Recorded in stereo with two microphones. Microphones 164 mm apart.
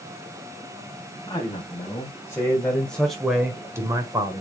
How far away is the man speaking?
About 3 m.